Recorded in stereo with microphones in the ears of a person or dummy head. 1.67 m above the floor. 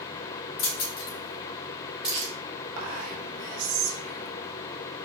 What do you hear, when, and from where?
0.6 s keys jangling: 70° left (ahead or behind), 1.9 m; by 2.3 s 15° right (ahead or behind), 1.4 m
2.8 s whispering: 70° right (ahead or behind), 1.2 m